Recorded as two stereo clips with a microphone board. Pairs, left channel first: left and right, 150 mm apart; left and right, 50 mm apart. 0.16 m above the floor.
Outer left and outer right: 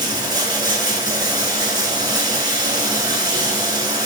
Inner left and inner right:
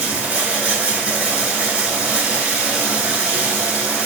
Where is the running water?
25° right (ahead or behind), 0.8 m.